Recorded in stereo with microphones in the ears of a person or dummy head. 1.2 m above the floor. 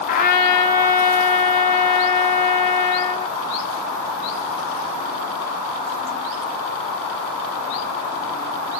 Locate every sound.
0.1 s a trumpet: 35° left (ahead or behind), 0.7 m